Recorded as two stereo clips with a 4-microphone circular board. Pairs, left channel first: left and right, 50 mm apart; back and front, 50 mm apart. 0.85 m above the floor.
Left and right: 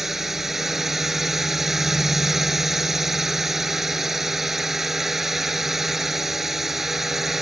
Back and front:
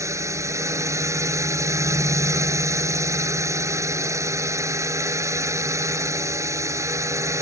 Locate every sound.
0.0 s a drone: 5° right